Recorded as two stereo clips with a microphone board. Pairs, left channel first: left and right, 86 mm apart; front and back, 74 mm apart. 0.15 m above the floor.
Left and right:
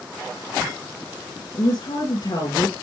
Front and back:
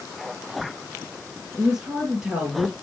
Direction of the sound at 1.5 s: 100° left.